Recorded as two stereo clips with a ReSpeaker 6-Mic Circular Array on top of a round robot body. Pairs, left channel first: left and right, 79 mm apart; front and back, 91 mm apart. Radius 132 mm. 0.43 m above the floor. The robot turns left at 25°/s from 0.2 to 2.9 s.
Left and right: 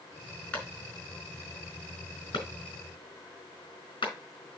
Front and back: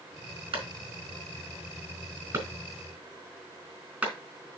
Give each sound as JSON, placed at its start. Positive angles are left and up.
{"t": 0.5, "sound": "a clap", "azimuth_deg": 165, "distance_m": 4.5}